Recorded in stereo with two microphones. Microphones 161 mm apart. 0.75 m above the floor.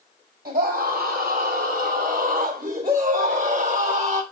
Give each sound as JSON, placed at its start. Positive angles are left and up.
{"t": 0.5, "sound": "a scream", "side_deg": -70, "distance_m": 4.5}